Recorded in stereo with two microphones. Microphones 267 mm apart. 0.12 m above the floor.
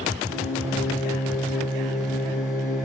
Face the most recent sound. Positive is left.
turn(degrees=-10)  # may be behind; listen again after turning